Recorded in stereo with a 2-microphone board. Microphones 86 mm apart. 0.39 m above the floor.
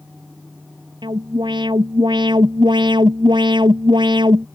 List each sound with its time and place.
1.0 s an alarm: 65° right (ahead or behind)